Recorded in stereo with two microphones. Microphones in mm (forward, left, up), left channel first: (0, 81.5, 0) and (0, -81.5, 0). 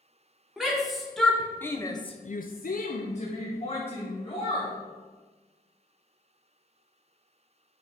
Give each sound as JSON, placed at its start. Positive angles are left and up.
{"t": 0.6, "sound": "a shout", "side_deg": -5, "distance_m": 2.0}